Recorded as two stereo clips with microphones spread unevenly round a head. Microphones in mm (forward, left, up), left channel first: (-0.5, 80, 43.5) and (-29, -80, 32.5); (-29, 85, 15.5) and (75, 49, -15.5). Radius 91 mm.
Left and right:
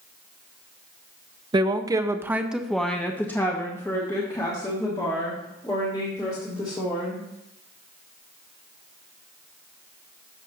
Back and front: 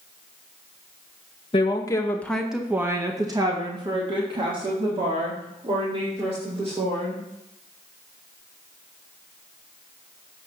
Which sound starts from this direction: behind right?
A woman speaking, at 1.5 s.